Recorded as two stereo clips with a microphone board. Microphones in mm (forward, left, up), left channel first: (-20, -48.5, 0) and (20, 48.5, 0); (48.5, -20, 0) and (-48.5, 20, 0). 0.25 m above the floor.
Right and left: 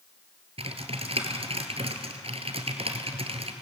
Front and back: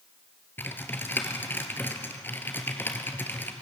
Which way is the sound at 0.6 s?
45° left.